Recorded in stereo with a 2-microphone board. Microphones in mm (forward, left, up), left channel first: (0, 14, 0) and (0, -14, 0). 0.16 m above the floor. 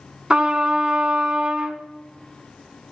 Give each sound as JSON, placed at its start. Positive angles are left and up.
{"t": 0.3, "sound": "a trumpet", "side_deg": -40, "distance_m": 0.6}